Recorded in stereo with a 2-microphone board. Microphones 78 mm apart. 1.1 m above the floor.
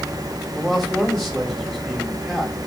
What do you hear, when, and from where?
0.6 s a man speaking: centre (ahead or behind), 3.5 m